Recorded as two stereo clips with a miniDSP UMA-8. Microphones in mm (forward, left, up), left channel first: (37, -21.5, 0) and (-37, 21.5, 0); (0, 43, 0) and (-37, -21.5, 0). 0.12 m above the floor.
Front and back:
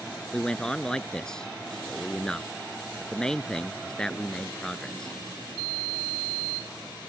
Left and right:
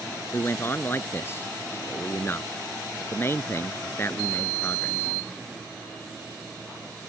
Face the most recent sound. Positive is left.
turn(degrees=45)